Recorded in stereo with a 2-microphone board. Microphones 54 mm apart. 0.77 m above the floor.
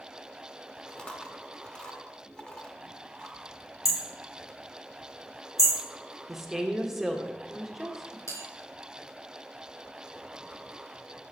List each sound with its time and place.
0.9 s chewing: 20° left (ahead or behind), 0.9 m
3.9 s hammering: 70° left (ahead or behind), 1.7 m
6.3 s a woman speaking: 5° right (ahead or behind), 1.0 m
8.3 s a bell: 75° left (ahead or behind), 4 m